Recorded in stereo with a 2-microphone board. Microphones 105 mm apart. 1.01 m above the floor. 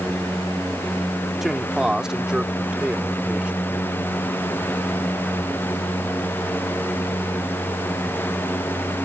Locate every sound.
1.4 s a man speaking: 5° right (ahead or behind); by 3.9 s 10° right (ahead or behind)